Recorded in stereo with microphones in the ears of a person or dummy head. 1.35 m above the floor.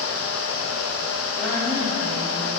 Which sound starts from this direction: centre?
A woman speaking, at 1.4 s.